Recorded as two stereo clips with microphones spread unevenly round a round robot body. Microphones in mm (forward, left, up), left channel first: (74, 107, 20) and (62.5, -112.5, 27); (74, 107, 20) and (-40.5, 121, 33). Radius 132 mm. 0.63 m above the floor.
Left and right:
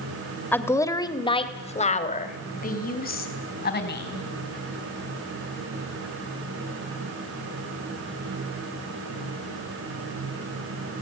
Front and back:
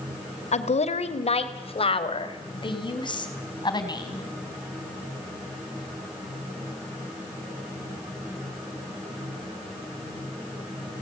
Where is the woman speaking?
5° left, 2 m; by 4.2 s 45° left, 4.5 m.